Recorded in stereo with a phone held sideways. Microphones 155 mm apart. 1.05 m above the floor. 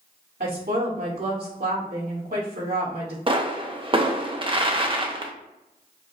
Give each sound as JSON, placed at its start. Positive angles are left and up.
{"t": 0.4, "sound": "a woman speaking", "side_deg": -75, "distance_m": 2.0}
{"t": 3.3, "sound": "a pop", "side_deg": -35, "distance_m": 0.6}